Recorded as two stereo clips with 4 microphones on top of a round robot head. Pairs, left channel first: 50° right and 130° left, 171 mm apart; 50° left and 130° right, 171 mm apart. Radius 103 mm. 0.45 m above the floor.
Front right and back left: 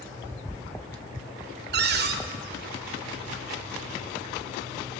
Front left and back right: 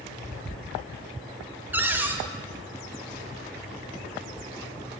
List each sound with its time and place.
1.7 s a cupboard door: 150° left, 0.9 m